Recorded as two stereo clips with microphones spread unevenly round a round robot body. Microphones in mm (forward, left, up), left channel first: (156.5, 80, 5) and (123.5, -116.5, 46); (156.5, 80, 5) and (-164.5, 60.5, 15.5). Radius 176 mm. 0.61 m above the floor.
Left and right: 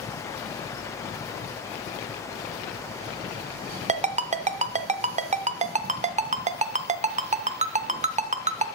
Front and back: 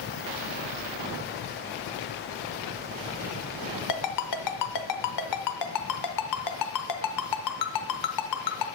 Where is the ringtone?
40° right, 0.7 m.